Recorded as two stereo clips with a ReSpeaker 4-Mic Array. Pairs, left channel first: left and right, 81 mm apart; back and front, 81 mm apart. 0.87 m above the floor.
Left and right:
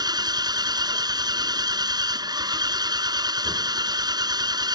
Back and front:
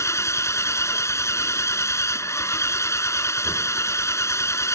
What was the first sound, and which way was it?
An engine running, 125° right.